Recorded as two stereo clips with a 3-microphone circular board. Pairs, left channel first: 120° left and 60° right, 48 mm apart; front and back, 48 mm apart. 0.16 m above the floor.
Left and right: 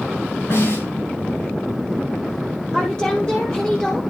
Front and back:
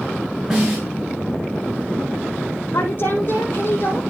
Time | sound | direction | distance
0.5 | a snare drum | 100° left | 7 m
2.7 | a woman speaking | 50° left | 5 m